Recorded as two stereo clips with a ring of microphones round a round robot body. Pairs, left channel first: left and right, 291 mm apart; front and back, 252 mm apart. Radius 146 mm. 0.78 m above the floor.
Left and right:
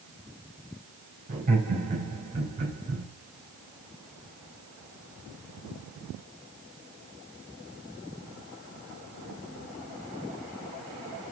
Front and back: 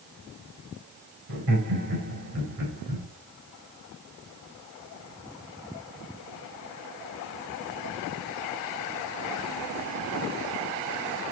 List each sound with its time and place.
1.3 s laughter: 155° right, 3.5 m